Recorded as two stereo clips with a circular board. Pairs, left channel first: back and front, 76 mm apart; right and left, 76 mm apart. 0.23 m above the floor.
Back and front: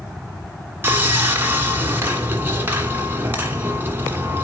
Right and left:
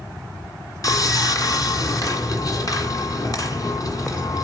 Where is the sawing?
60° right, 1.6 m.